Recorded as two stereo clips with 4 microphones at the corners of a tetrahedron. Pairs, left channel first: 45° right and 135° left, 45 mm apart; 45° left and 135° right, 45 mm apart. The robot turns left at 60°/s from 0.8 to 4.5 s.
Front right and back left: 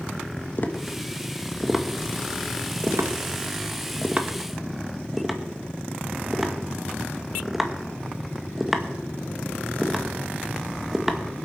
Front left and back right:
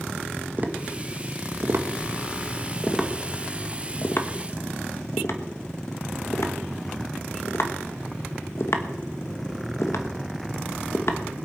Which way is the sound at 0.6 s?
85° right.